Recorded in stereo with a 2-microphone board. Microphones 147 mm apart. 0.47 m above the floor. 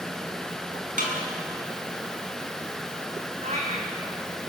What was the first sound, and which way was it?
A snare drum, 65° right (ahead or behind).